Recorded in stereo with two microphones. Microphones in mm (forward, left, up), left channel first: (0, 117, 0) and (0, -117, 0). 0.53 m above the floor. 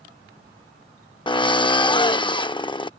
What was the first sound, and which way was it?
A drill, 20° left (ahead or behind).